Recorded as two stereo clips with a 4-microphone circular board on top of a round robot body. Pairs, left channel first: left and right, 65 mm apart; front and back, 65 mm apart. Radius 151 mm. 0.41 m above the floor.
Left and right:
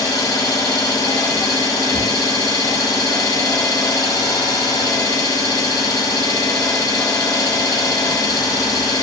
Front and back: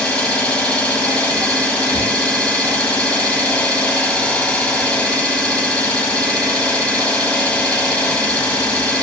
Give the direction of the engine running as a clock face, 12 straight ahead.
10 o'clock.